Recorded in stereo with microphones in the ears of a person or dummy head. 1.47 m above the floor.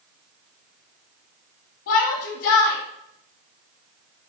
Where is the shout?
60° left (ahead or behind), 1.0 m.